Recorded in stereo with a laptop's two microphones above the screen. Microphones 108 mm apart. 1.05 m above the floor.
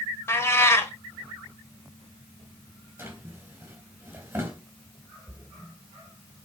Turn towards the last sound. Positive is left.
turn(degrees=-10)  # may be behind; listen again after turning